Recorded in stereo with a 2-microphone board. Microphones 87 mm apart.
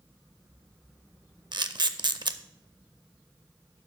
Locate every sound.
1.5 s a camera shutter: 60° right (ahead or behind), 0.5 m